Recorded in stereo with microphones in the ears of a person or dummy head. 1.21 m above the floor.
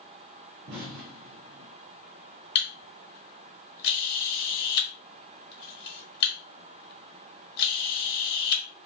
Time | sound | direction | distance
0.7 | an explosion | 65° right (ahead or behind) | 0.6 m
2.5 | a camera shutter | 60° left (ahead or behind) | 1.1 m